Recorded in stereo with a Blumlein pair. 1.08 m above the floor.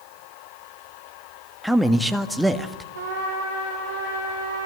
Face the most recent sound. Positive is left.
turn(degrees=-65)